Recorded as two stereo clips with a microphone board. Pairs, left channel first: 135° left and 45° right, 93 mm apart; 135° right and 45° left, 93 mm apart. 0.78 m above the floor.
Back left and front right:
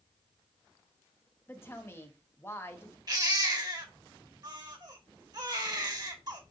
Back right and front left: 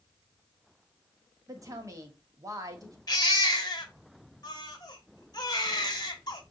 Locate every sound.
1.5 s a woman speaking: 80° left, 1.2 m
3.1 s a baby crying: 90° right, 1.1 m